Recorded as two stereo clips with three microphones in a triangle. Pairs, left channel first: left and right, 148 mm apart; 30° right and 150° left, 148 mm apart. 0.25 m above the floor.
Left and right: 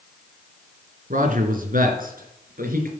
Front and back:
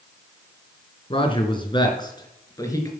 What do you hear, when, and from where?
1.1 s a man speaking: 80° right, 3 m; by 2.9 s 95° right, 4 m